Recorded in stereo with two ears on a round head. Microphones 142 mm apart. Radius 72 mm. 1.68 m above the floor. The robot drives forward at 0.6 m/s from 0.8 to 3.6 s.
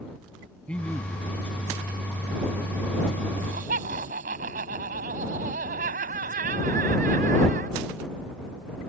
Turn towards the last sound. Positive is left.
turn(degrees=-55)  # may be behind; listen again after turning